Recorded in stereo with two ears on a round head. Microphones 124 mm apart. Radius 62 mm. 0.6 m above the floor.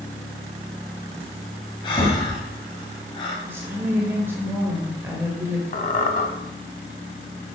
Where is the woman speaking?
15° right (ahead or behind), 2 m.